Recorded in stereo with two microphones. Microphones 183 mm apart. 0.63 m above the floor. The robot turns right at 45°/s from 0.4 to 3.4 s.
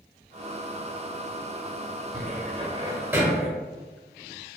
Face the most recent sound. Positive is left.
turn(degrees=0)  # may be behind; listen again after turning